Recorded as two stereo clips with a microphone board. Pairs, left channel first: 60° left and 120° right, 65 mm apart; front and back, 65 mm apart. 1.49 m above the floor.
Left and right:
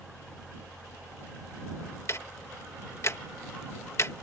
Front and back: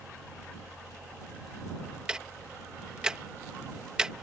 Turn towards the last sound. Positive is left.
turn(degrees=105)